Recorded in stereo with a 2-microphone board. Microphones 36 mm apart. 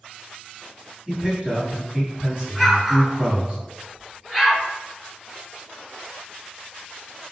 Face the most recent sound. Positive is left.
turn(degrees=-5)  # may be behind; listen again after turning